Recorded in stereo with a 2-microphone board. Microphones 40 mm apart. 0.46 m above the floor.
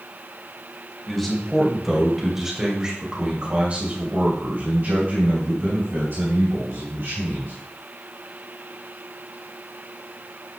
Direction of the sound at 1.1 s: 10° left (ahead or behind).